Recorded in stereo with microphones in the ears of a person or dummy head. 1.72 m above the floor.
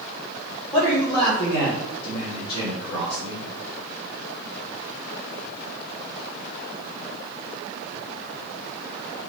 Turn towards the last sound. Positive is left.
turn(degrees=30)  # may be behind; listen again after turning